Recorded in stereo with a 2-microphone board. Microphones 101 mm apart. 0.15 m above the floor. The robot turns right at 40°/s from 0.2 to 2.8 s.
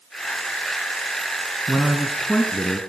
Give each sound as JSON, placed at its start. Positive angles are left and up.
{"t": 1.7, "sound": "a man speaking", "azimuth_deg": -15, "distance_m": 1.3}